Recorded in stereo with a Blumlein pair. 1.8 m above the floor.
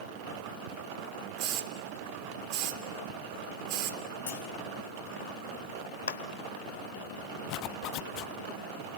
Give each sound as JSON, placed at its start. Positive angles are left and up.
{"t": 1.4, "sound": "a hiss", "azimuth_deg": -45, "distance_m": 1.8}
{"t": 4.3, "sound": "a clunk", "azimuth_deg": 60, "distance_m": 3.0}
{"t": 6.1, "sound": "a clap", "azimuth_deg": 65, "distance_m": 1.2}
{"t": 7.5, "sound": "a zipper", "azimuth_deg": 40, "distance_m": 0.6}